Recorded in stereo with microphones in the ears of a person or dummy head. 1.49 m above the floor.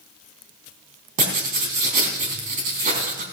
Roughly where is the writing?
Right.